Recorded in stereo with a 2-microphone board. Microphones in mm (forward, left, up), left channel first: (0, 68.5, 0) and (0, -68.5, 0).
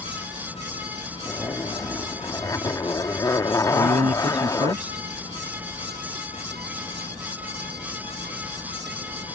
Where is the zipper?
25° left (ahead or behind).